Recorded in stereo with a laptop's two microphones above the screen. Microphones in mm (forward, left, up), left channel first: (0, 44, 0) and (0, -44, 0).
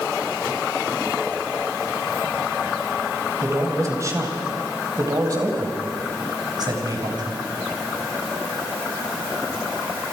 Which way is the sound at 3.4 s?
35° right (ahead or behind).